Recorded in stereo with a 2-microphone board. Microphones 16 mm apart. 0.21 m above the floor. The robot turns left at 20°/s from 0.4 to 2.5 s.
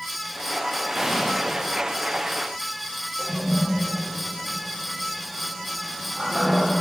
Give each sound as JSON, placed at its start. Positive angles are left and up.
{"t": 0.9, "sound": "an explosion", "side_deg": -15, "distance_m": 9.0}
{"t": 3.2, "sound": "a toilet flushing", "side_deg": -10, "distance_m": 8.5}